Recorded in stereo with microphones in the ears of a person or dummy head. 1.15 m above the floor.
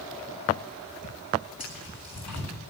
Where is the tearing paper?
5° left (ahead or behind), 9.5 m.